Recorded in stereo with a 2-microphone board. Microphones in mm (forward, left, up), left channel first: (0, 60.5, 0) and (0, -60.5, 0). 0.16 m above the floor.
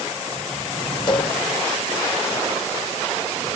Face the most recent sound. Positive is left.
turn(degrees=35)  # may be behind; listen again after turning